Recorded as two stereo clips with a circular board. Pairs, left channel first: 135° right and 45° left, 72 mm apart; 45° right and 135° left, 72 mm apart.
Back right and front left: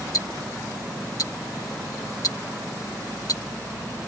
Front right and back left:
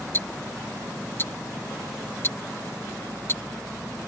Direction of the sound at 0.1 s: 100° right.